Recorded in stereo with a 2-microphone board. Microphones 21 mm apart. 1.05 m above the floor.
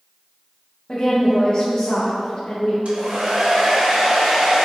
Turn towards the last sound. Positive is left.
turn(degrees=-80)